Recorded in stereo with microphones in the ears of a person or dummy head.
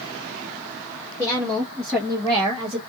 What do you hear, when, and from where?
1.2 s a woman speaking: 10° left (ahead or behind), 1.8 m; by 2.8 s 30° right (ahead or behind), 1.1 m